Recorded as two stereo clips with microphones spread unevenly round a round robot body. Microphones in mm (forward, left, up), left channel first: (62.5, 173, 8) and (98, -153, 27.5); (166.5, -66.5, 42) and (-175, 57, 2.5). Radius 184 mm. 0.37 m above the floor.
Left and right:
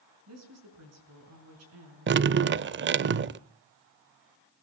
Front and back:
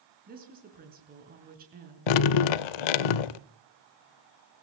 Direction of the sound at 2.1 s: 25° right.